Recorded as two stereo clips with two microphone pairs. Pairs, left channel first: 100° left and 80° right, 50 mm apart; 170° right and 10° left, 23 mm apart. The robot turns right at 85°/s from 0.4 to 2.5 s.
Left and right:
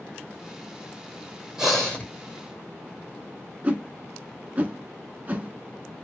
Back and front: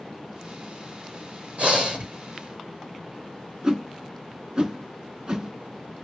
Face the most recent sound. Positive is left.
turn(degrees=-30)